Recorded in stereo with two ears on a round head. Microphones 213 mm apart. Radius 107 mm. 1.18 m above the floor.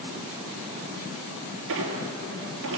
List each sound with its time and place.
1.7 s a squeak: 60° right (ahead or behind), 3.5 m